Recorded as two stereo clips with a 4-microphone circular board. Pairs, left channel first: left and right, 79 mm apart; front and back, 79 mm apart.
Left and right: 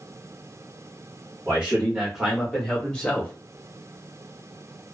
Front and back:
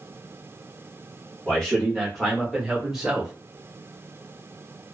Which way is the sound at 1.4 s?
65° right.